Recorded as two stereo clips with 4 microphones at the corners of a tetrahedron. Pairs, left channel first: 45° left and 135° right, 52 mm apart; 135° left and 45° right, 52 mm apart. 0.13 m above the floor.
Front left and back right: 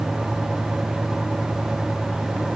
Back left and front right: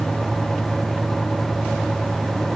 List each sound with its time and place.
Only background noise.